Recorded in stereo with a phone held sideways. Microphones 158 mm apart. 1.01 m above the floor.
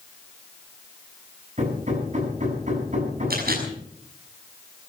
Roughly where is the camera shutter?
Right.